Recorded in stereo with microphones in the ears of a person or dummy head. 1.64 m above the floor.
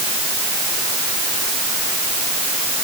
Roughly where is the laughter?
No laughter in this recording.